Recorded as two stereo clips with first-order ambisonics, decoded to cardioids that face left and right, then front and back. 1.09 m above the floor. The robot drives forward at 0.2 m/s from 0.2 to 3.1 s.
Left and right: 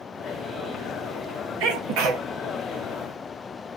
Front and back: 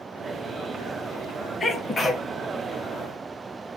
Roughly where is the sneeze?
Right.